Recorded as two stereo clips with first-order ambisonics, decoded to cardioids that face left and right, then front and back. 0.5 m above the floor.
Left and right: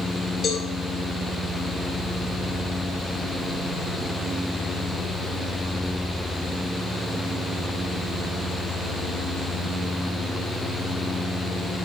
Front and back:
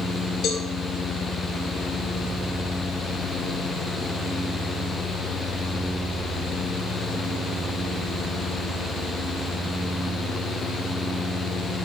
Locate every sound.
0.4 s a cowbell: 30° left, 1.8 m